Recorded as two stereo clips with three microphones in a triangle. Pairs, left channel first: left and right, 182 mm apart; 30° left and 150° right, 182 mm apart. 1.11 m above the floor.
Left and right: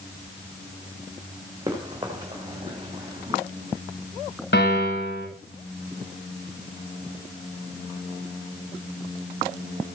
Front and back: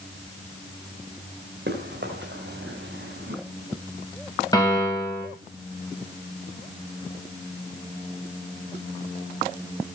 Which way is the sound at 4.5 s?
100° left.